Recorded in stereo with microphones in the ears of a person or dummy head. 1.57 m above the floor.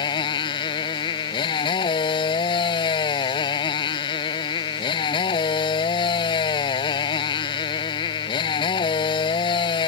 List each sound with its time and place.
0.0 s a motorcycle: 30° left (ahead or behind)